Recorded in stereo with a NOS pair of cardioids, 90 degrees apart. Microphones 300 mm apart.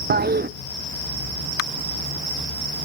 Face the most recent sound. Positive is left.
turn(degrees=-35)